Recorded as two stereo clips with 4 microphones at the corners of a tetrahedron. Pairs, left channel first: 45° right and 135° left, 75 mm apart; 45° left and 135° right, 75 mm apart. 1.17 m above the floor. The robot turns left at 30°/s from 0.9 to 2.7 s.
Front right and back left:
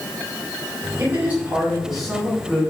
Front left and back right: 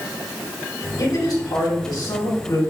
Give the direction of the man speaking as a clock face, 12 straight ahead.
9 o'clock.